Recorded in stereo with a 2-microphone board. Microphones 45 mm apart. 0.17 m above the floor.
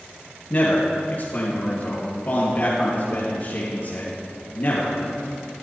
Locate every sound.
0.5 s a man speaking: 40° left (ahead or behind), 4 m